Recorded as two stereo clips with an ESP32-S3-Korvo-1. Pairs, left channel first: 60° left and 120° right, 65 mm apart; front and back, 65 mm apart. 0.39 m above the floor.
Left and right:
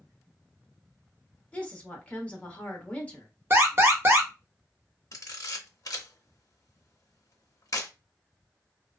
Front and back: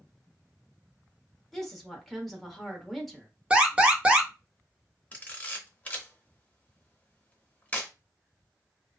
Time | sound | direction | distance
1.5 | a woman speaking | 85° left | 0.8 m
3.5 | an alarm | 120° right | 0.7 m
5.1 | a camera shutter | 60° left | 0.6 m